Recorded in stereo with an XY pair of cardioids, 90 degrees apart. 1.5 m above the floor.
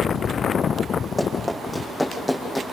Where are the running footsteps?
10° left, 5.5 m; by 2.6 s straight ahead, 5.5 m.